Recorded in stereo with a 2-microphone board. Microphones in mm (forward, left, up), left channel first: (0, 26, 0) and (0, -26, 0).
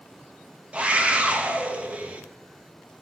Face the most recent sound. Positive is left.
turn(degrees=-25)  # may be behind; listen again after turning